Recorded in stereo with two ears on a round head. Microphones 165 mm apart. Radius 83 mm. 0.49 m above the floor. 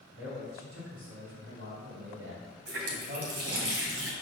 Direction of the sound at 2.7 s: 60° right (ahead or behind).